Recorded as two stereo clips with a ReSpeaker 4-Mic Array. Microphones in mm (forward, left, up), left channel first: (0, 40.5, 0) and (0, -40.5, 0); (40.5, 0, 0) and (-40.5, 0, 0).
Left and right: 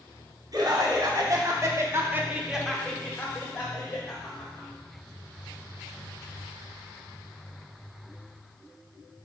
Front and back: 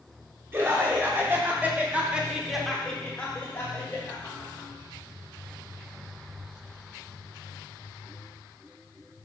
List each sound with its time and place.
0.5 s laughter: 120° right, 2 m; by 4.7 s 55° left, 2.0 m